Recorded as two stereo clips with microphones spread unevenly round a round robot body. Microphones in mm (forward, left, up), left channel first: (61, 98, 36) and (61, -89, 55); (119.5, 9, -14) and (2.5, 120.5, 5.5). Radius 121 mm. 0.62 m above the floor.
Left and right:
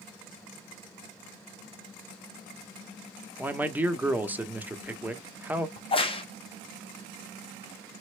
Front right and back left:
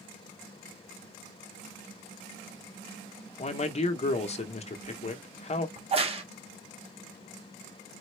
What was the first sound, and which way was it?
A man speaking, 5° right.